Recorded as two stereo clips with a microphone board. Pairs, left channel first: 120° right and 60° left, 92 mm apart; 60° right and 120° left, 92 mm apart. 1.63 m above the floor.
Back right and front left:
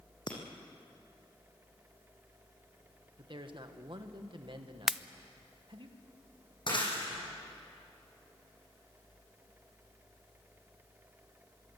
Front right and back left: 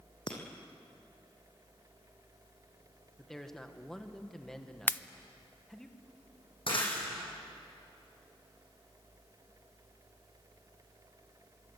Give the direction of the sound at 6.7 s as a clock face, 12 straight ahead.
3 o'clock.